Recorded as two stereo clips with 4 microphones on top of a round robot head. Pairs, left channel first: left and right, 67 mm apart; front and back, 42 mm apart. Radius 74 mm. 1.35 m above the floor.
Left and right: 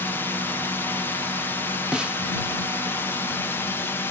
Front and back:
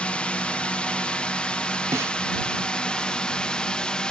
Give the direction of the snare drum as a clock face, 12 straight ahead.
6 o'clock.